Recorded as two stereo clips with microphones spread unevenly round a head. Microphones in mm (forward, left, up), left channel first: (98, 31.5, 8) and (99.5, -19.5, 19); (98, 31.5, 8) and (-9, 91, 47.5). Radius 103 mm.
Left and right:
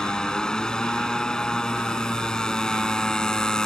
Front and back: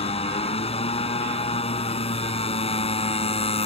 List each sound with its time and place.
0.0 s a motorcycle: 15° left